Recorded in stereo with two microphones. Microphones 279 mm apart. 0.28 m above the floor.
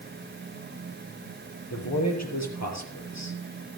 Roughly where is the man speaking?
Left.